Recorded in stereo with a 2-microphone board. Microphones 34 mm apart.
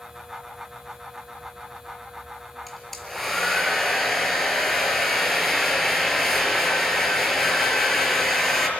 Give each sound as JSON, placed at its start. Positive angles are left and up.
{"t": 2.7, "sound": "a hair dryer", "side_deg": 5, "distance_m": 4.5}